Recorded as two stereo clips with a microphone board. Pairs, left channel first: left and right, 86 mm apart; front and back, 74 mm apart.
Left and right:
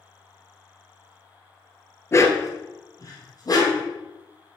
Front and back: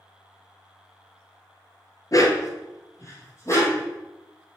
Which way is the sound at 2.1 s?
35° left.